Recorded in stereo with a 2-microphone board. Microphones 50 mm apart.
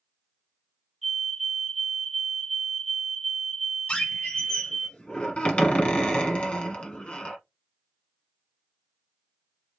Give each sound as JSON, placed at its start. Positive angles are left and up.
{"t": 1.0, "sound": "a fire alarm", "side_deg": -5, "distance_m": 2.5}
{"t": 3.9, "sound": "a squeak", "side_deg": 20, "distance_m": 1.4}